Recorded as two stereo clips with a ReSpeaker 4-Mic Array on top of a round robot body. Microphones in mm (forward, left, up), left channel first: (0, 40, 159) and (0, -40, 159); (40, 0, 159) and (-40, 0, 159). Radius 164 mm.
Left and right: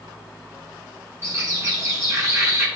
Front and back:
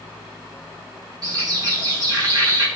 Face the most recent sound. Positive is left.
turn(degrees=-140)